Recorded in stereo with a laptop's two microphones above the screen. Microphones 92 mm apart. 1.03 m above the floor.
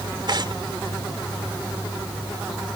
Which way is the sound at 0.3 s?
55° right (ahead or behind).